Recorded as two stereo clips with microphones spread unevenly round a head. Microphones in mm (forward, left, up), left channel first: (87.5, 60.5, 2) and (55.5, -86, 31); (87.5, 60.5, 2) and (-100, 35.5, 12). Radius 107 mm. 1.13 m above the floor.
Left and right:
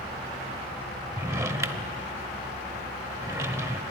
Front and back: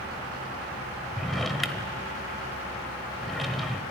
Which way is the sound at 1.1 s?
85° right.